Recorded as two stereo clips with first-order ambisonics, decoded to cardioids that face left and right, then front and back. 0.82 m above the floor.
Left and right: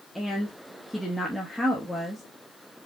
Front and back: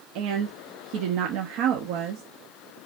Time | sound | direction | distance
0.1 | a woman speaking | straight behind | 1.0 m